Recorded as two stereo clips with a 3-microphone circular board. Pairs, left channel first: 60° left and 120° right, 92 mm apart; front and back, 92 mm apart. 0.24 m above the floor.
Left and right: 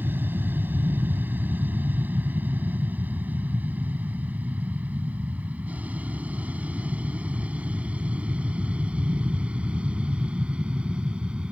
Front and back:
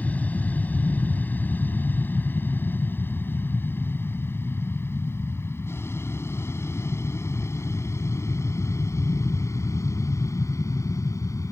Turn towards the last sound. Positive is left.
turn(degrees=-45)